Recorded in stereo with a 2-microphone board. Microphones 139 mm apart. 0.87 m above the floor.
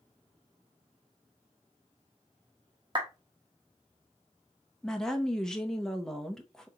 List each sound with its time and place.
3.0 s a clap: 40° right (ahead or behind), 1.2 m
4.8 s a woman speaking: 5° left (ahead or behind), 0.8 m